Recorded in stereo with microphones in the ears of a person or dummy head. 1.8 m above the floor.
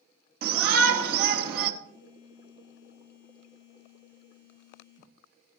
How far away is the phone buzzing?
About 1.2 m.